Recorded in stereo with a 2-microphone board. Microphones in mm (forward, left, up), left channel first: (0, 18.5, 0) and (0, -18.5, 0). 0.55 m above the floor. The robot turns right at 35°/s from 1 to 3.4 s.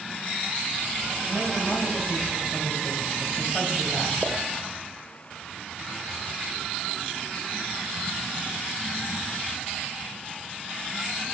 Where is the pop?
5° right (ahead or behind), 1.1 m.